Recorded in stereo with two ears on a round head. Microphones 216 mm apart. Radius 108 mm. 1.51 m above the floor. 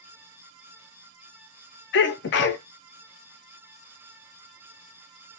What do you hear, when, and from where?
1.9 s a sneeze: 50° left (ahead or behind), 0.6 m